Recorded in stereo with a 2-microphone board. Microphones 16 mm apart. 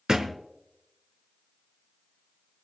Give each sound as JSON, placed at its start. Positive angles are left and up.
{"t": 0.1, "sound": "a thud", "side_deg": -55, "distance_m": 1.4}